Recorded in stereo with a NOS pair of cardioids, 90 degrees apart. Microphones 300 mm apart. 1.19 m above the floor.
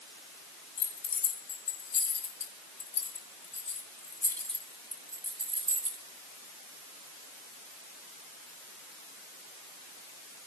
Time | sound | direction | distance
0.8 | keys jangling | 65° left | 3.5 m